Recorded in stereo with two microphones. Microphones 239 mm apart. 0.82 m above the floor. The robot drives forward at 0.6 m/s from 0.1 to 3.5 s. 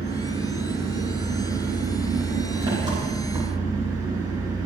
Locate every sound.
0.0 s an engine running: 20° right (ahead or behind), 7.5 m; by 4.7 s 15° right (ahead or behind), 9.5 m